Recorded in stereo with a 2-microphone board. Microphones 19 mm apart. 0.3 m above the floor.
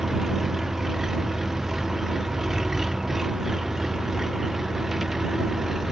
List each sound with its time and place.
0.0 s an engine running: 30° right (ahead or behind)